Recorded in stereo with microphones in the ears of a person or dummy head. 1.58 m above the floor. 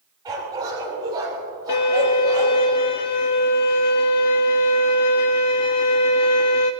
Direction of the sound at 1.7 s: 25° left (ahead or behind).